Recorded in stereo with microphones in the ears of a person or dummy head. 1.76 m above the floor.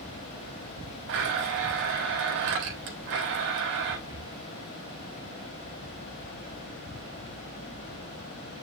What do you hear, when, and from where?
1.1 s a blender: 65° right (ahead or behind), 3 m
4.1 s breathing: 25° right (ahead or behind), 4.5 m